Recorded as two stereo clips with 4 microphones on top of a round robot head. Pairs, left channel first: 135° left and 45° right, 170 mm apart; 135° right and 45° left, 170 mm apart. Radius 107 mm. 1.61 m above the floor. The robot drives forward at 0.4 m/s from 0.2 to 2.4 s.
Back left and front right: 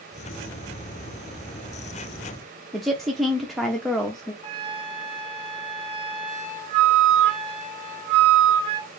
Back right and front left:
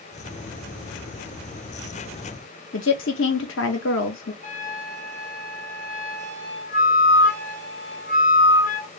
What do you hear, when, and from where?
2.7 s a woman speaking: 135° right, 0.7 m
4.4 s a flute: 95° right, 1.5 m